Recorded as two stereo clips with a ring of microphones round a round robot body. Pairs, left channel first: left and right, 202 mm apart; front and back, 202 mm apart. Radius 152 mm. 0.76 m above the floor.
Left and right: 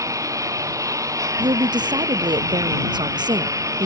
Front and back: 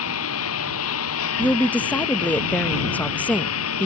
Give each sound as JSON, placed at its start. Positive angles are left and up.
{"t": 0.0, "sound": "a lawn mower", "azimuth_deg": -15}
{"t": 1.4, "sound": "a woman speaking", "azimuth_deg": -70}